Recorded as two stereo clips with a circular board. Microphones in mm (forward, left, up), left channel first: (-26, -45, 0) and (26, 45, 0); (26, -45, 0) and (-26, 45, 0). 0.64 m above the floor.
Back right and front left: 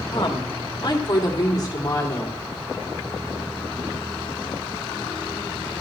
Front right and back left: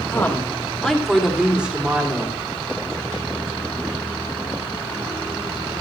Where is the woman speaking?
120° right, 1.6 m; by 2.4 s 175° right, 2 m.